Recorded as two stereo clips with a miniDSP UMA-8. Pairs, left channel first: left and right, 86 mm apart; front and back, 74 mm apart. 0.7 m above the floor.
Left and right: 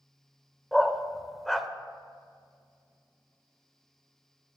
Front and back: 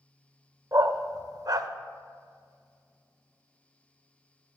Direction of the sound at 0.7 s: 175° left.